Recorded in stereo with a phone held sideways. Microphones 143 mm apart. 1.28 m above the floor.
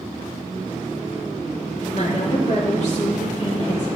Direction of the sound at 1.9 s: 50° left (ahead or behind).